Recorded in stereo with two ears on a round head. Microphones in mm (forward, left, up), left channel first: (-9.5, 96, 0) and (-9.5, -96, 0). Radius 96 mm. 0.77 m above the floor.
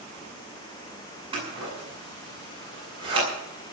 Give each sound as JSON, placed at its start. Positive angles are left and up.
{"t": 1.3, "sound": "scissors", "side_deg": -25, "distance_m": 8.0}